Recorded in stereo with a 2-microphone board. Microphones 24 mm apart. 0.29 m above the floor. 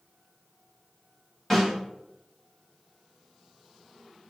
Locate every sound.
1.5 s a snare drum: 15° left (ahead or behind), 2 m